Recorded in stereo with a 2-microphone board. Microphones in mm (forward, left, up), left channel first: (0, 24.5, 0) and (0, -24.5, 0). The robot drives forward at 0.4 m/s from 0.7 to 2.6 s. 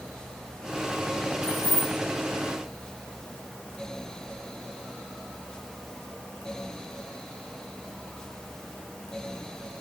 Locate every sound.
1.4 s keys jangling: 30° right (ahead or behind), 3.5 m